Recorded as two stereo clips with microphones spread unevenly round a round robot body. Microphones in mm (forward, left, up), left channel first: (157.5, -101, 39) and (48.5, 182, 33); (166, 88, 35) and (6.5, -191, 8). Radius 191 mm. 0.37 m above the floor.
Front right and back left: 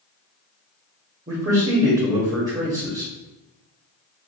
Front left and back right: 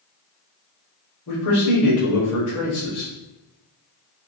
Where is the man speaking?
55° left, 1.3 m.